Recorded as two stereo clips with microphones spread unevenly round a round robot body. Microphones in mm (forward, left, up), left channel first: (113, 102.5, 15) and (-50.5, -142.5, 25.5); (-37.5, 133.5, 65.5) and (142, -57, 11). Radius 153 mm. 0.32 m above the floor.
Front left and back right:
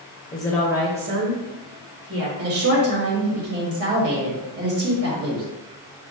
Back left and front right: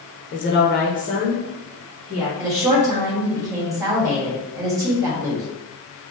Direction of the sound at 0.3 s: 110° left.